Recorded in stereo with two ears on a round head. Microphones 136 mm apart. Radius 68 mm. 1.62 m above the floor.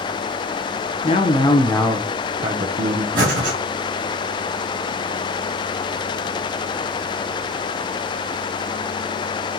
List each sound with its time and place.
1.0 s a man speaking: 40° left (ahead or behind), 0.7 m; by 3.0 s 55° right (ahead or behind), 0.8 m
3.1 s breathing: 60° right (ahead or behind), 1.8 m